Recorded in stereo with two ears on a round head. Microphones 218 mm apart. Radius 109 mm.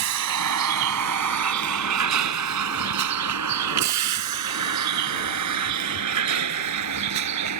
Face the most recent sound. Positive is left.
turn(degrees=-85)